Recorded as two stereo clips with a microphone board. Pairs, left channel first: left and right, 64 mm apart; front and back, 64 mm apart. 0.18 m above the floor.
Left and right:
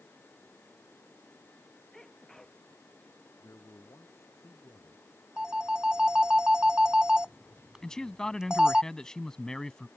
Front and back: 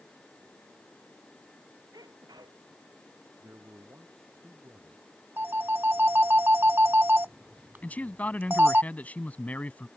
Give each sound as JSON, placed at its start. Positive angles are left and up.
{"t": 1.9, "sound": "a sneeze", "azimuth_deg": 175}
{"t": 3.4, "sound": "a man speaking", "azimuth_deg": 130}
{"t": 5.4, "sound": "a phone ringing", "azimuth_deg": -160}
{"t": 7.8, "sound": "a man speaking", "azimuth_deg": 20}